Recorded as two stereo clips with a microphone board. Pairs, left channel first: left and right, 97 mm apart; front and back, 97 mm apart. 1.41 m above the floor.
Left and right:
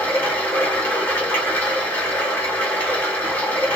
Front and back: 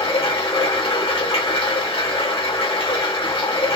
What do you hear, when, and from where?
0.0 s running water: 20° left, 1.7 m